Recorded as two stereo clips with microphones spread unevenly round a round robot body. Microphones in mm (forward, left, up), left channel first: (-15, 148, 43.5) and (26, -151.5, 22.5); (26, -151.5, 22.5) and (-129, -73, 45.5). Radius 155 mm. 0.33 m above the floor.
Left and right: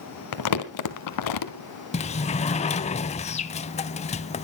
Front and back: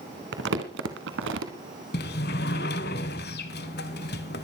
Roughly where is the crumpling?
Behind left.